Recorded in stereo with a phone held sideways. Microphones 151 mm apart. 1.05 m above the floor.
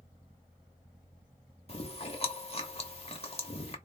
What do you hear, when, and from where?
1.7 s chewing: 40° left (ahead or behind), 1.0 m